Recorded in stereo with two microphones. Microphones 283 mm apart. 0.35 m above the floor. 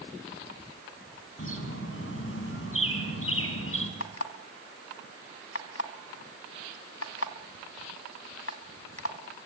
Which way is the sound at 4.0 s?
60° left (ahead or behind).